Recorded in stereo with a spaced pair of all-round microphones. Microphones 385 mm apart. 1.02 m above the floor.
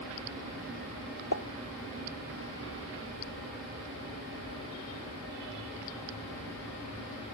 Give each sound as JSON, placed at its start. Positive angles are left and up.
{"t": 1.3, "sound": "a pop", "side_deg": 50}